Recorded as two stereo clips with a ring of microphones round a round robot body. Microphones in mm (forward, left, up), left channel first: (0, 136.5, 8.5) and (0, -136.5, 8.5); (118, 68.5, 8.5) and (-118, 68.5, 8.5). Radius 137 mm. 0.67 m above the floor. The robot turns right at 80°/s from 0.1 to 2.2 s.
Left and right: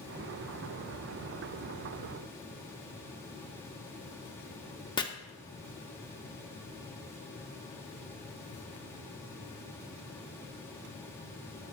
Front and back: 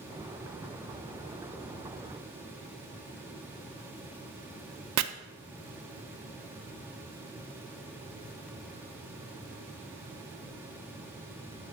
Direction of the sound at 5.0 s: 165° left.